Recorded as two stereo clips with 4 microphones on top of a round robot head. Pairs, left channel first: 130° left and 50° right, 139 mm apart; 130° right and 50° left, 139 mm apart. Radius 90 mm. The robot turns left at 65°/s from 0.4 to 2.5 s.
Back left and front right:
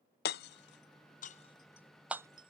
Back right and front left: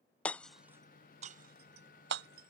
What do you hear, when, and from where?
0.2 s hammering: 145° left; by 2.5 s 10° left